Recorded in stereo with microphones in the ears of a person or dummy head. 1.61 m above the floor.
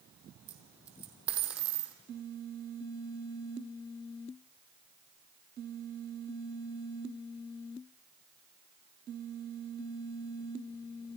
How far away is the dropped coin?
About 3 m.